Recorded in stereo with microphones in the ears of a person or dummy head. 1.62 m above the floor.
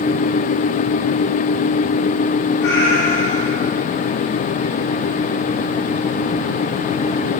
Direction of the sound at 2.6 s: 65° left (ahead or behind).